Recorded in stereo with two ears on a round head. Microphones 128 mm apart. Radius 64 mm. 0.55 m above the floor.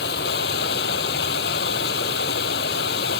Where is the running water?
75° left (ahead or behind).